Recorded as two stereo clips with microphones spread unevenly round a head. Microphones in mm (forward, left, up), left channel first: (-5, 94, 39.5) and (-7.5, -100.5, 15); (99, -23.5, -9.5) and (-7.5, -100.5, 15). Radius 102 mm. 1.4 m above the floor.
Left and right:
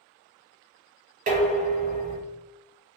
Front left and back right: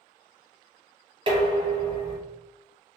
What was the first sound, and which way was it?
Dishes clattering, 135° right.